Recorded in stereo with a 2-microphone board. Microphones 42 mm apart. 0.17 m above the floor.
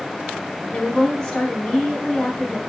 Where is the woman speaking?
15° left (ahead or behind), 1.1 m.